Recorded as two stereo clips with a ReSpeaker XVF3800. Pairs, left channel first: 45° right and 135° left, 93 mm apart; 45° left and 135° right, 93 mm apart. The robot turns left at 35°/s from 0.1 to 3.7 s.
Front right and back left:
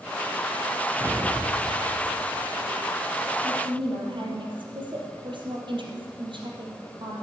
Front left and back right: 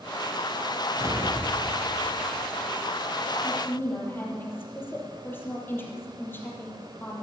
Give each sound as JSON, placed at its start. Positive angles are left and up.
{"t": 1.0, "sound": "an explosion", "azimuth_deg": -170, "distance_m": 1.9}
{"t": 3.4, "sound": "a woman speaking", "azimuth_deg": 120, "distance_m": 4.0}